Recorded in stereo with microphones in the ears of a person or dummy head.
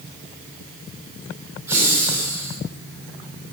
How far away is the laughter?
About 0.8 m.